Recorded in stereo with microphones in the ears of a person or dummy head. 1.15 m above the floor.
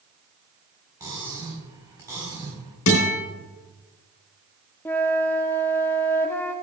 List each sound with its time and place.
1.0 s cutlery clinking: 15° right (ahead or behind), 4 m
2.9 s a guitar: 80° left, 3.5 m
4.8 s a flute: 10° left (ahead or behind), 0.6 m